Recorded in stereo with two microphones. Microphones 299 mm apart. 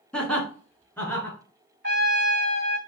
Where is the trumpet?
35° right (ahead or behind), 0.8 m.